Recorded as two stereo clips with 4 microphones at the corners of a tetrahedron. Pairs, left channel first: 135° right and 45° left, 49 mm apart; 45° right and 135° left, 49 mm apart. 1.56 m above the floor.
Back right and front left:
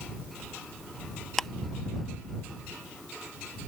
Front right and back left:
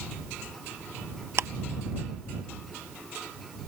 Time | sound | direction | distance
1.4 | ticking | 145° left | ?